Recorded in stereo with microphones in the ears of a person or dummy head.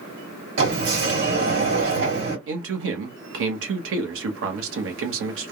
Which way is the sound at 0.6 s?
65° right (ahead or behind).